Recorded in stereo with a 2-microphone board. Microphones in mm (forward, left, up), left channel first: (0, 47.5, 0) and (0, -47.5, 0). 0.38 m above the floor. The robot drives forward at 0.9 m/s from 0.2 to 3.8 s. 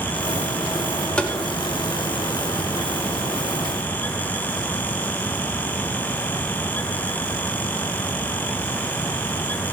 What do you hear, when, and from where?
1.2 s tapping: 10° left (ahead or behind), 0.8 m